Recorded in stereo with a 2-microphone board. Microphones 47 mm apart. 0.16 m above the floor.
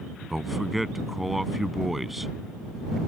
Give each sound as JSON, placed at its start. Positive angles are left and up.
{"t": 0.3, "sound": "a man speaking", "side_deg": -5}